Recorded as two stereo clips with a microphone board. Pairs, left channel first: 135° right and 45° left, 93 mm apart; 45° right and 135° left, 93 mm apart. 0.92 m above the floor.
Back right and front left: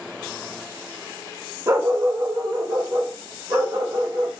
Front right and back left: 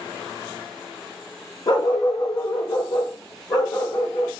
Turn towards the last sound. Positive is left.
turn(degrees=5)